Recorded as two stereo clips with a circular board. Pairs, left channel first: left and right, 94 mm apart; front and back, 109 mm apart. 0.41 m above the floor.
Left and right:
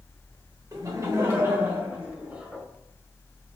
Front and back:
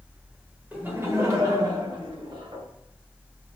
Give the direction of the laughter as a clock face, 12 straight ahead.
4 o'clock.